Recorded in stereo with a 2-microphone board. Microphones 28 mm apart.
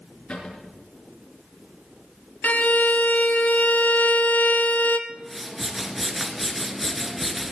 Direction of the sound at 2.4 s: 85° left.